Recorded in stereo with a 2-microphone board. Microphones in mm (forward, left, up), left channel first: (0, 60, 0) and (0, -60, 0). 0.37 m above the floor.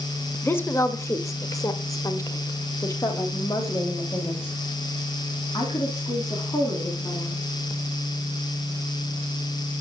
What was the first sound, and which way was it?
A woman speaking, 15° left (ahead or behind).